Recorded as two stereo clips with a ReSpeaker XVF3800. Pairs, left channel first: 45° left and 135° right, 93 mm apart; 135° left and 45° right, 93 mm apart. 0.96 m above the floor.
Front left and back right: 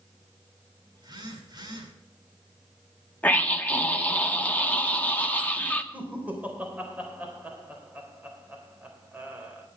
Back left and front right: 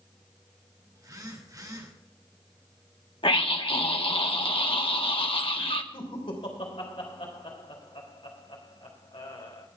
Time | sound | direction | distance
0.9 | a phone buzzing | 95° right | 2.5 m
3.2 | a scream | 120° left | 1.5 m
5.9 | laughter | 150° left | 3.5 m